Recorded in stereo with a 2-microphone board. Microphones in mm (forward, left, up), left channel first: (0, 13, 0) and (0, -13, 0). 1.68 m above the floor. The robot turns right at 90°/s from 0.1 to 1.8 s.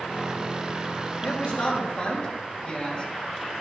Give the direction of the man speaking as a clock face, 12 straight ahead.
9 o'clock.